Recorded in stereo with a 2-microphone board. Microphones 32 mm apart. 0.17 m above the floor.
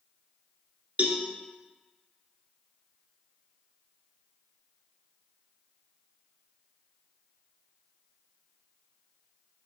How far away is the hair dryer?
No hair dryer in this recording.